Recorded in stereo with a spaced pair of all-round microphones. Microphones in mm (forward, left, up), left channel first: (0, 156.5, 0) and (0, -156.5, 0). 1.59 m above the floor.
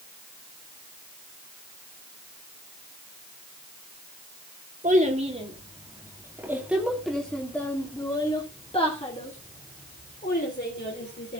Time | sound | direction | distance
4.8 | a child speaking | 25° right (ahead or behind) | 2.5 m